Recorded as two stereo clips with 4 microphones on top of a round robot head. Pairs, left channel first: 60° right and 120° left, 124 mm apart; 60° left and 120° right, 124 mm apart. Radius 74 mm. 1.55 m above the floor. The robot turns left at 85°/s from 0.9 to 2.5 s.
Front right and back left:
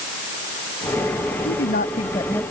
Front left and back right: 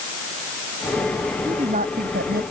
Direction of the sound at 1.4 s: 55° right.